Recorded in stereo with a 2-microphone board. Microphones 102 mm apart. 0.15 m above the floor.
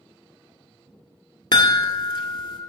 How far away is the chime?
About 0.7 m.